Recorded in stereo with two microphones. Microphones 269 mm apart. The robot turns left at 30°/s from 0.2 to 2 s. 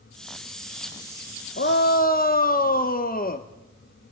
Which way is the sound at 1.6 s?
45° left (ahead or behind).